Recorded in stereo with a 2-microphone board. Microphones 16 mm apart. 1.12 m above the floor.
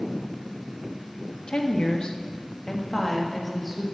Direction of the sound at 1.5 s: 70° left (ahead or behind).